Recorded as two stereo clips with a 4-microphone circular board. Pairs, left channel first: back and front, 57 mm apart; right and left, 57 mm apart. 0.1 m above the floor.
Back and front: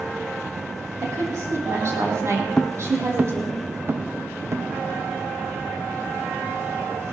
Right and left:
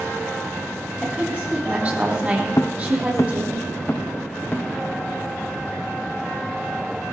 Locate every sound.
1.0 s a woman speaking: 25° left, 5 m
2.6 s footsteps: 105° right, 0.8 m; by 4.7 s 35° right, 1.8 m